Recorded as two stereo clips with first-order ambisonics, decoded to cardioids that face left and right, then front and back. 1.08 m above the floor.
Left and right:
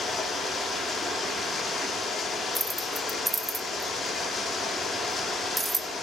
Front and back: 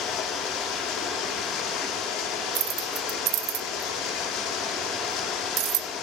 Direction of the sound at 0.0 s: 20° left.